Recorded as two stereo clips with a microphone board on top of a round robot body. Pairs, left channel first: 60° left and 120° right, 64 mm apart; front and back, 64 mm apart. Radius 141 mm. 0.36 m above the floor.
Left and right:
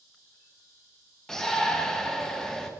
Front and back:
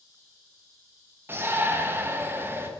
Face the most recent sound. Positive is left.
turn(degrees=140)